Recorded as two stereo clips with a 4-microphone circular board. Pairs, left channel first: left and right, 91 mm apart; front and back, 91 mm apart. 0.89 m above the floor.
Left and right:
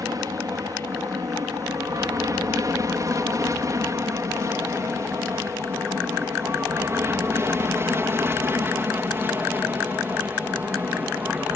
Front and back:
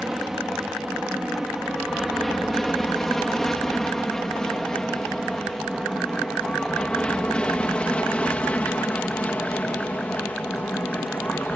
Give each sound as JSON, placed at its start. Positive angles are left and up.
{"t": 0.0, "sound": "an aircraft", "azimuth_deg": -90}